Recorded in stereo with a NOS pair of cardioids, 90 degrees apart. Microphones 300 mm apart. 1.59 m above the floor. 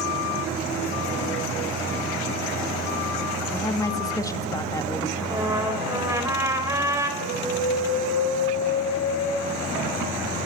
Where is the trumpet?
10° right, 3.5 m.